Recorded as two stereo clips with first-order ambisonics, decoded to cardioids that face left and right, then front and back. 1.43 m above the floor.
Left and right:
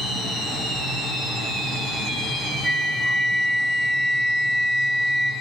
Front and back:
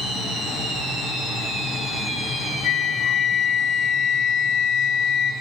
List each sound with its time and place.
2.6 s a flute: 5° right, 0.6 m